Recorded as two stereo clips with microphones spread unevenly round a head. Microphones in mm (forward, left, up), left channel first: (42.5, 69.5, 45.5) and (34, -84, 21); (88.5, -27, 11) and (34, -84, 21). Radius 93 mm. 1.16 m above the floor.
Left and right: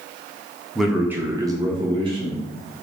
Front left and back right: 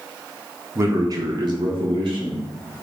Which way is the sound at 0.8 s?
170° right.